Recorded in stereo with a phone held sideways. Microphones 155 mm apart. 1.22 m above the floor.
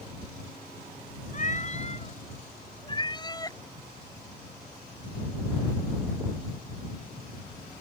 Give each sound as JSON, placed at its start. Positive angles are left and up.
{"t": 1.3, "sound": "a cat meowing", "side_deg": 50}